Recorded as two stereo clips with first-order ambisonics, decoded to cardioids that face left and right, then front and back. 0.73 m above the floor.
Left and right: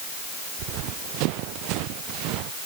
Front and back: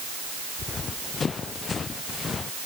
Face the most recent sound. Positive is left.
turn(degrees=-65)